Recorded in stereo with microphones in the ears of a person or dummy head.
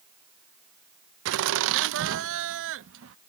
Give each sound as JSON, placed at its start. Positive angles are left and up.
{"t": 1.2, "sound": "laughter", "side_deg": -70}